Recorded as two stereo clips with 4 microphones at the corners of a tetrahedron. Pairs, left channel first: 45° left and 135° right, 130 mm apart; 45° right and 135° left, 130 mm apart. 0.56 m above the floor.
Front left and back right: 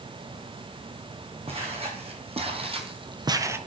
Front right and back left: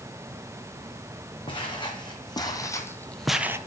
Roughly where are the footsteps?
Right.